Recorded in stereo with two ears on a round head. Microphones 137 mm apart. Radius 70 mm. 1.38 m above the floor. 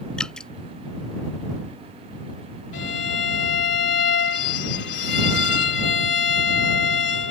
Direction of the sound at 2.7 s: 85° left.